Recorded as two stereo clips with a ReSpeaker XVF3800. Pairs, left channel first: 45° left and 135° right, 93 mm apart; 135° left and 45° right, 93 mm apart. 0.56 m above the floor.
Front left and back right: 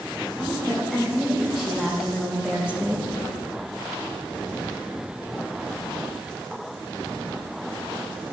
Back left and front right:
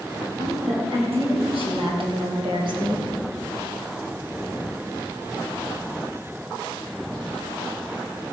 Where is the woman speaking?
45° right, 5.5 m; by 3.1 s 70° right, 1.9 m.